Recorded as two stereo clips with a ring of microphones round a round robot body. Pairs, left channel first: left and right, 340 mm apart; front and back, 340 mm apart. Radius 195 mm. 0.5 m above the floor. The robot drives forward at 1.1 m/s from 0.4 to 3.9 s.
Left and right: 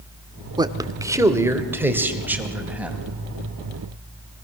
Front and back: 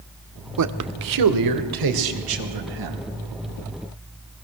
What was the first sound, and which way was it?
A man speaking, 165° right.